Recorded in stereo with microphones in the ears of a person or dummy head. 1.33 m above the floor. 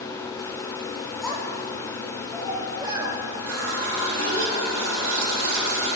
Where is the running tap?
70° right (ahead or behind), 2.5 m.